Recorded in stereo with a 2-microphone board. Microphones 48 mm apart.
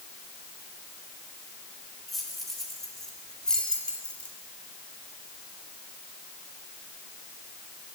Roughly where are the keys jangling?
Centre.